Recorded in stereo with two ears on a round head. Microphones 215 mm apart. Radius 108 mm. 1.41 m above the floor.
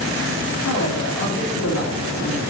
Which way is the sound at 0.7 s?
85° left.